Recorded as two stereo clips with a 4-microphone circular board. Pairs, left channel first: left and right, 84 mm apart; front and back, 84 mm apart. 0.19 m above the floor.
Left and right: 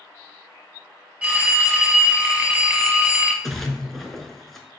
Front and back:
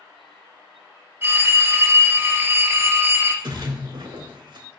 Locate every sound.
1.2 s a phone ringing: 150° right, 0.6 m
3.4 s a splash: 175° left, 0.6 m